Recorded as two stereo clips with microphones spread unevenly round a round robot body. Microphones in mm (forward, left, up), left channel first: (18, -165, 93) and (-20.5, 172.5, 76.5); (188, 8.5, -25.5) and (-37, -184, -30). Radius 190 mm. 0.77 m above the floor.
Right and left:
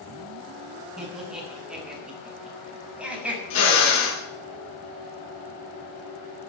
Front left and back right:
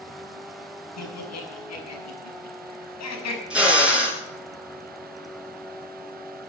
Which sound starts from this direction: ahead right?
A drill, at 3.5 s.